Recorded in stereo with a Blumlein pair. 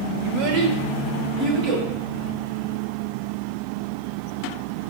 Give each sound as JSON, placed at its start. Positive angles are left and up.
{"t": 0.2, "sound": "a child speaking", "azimuth_deg": -50, "distance_m": 0.6}